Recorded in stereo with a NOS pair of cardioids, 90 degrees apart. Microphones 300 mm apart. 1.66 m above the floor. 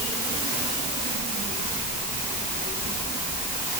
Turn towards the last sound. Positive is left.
No sound to turn to.